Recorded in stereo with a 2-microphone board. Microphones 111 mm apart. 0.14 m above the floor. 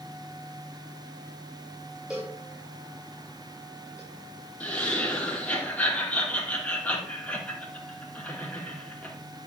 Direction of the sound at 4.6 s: 15° left (ahead or behind).